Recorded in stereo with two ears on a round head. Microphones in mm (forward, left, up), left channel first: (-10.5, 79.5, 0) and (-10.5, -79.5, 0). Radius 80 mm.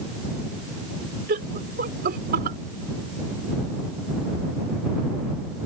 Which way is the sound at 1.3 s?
50° right (ahead or behind).